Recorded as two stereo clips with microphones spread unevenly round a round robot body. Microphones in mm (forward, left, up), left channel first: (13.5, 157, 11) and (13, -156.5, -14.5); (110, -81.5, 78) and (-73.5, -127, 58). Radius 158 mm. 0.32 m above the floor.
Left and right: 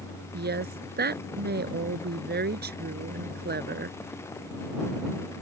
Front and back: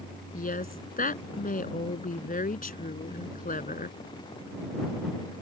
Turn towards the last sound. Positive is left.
turn(degrees=-30)